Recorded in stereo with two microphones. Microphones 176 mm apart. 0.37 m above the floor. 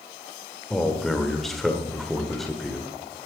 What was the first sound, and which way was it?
A man speaking, centre (ahead or behind).